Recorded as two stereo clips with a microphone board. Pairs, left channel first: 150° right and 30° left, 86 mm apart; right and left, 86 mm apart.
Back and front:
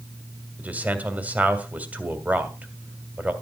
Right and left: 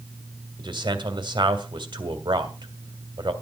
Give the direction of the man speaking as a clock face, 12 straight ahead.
9 o'clock.